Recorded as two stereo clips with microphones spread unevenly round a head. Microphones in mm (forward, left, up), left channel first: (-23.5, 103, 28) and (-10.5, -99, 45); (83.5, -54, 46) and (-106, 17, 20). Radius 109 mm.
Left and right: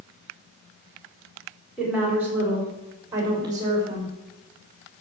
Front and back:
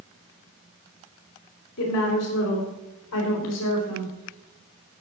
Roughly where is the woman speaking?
Ahead.